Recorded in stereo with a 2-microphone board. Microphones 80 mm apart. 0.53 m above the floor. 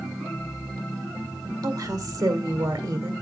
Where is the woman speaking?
60° right (ahead or behind), 1.8 m.